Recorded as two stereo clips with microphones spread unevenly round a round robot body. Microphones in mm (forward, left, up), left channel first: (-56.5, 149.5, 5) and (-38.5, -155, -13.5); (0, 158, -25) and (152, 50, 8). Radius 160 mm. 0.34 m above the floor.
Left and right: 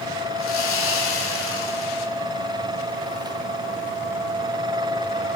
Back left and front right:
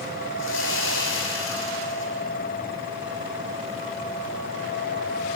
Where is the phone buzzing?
No phone buzzing in this recording.